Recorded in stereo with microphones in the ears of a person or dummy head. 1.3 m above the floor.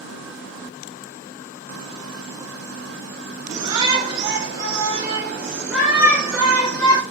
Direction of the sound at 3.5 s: 30° right (ahead or behind).